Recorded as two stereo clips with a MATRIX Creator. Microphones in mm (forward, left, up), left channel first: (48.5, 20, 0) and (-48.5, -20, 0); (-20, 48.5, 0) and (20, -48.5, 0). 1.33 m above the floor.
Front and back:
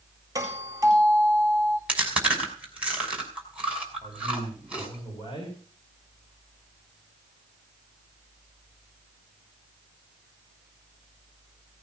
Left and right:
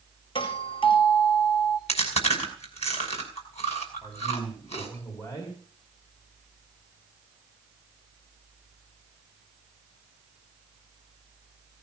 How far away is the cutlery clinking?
I don't hear cutlery clinking.